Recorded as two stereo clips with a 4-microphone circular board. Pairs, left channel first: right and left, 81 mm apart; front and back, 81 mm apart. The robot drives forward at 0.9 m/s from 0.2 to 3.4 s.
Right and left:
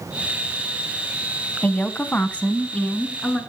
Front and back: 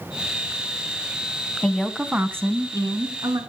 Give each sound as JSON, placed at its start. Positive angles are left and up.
{"t": 1.6, "sound": "a woman speaking", "azimuth_deg": -65, "distance_m": 1.0}